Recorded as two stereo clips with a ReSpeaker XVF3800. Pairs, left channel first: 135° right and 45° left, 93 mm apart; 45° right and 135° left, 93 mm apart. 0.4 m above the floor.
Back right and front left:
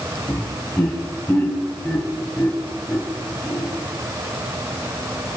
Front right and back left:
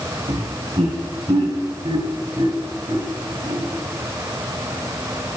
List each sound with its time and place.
0.3 s laughter: 160° left, 3.5 m; by 3.7 s 145° left, 1.9 m